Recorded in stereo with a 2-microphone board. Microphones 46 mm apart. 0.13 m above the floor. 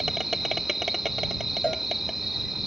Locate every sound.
0.0 s an insect: 5° right (ahead or behind)
1.6 s a cowbell: 20° left (ahead or behind)